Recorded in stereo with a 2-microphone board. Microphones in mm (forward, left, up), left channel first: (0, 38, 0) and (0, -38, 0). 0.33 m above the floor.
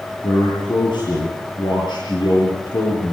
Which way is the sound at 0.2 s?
80° left.